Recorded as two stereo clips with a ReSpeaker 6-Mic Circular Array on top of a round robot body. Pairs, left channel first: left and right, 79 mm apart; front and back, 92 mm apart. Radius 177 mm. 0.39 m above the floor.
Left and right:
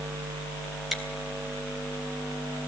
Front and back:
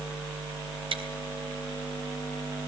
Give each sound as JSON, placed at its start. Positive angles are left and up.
{"t": 0.9, "sound": "chewing", "azimuth_deg": 180, "distance_m": 3.5}